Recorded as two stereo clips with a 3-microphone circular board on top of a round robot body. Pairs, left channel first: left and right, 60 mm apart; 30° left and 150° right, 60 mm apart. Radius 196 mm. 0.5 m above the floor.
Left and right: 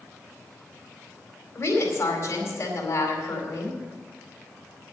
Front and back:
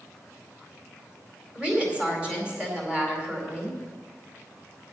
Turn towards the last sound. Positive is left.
turn(degrees=135)